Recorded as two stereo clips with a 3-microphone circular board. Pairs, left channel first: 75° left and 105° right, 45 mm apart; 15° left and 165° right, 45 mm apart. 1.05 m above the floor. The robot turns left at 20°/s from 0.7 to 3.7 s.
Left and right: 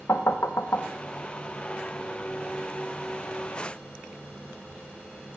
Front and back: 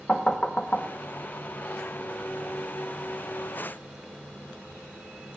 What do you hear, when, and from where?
0.1 s knocking: 80° left, 0.7 m; by 0.9 s 75° left, 0.7 m